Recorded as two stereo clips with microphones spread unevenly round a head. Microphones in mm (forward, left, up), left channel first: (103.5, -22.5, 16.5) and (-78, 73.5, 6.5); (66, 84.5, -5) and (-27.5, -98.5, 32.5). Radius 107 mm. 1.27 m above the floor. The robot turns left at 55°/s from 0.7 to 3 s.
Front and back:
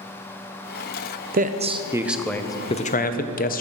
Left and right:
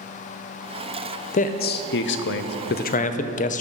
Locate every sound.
1.3 s a man speaking: 110° left, 0.6 m; by 3.6 s 20° left, 0.6 m